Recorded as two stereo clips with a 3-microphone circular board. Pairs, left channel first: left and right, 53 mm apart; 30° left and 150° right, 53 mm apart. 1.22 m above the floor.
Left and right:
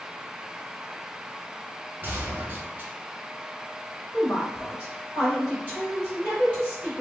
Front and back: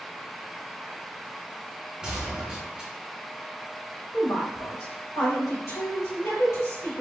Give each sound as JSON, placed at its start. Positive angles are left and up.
{"t": 2.0, "sound": "a gunshot", "azimuth_deg": -90, "distance_m": 1.2}
{"t": 4.1, "sound": "a woman speaking", "azimuth_deg": 25, "distance_m": 2.0}